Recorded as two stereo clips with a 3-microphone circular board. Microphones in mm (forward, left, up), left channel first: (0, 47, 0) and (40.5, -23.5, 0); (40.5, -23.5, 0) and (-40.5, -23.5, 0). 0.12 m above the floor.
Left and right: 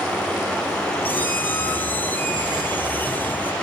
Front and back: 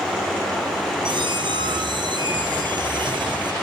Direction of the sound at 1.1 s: 175° right.